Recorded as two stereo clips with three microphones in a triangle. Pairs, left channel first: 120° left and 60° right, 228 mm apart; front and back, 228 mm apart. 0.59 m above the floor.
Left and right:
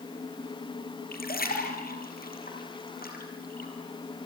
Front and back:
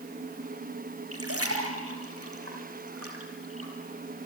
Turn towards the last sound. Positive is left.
turn(degrees=170)